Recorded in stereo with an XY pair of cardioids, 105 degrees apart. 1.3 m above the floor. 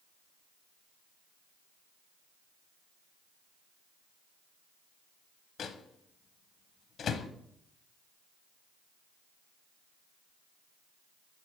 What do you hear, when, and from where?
5.6 s a microwave: 50° left, 0.6 m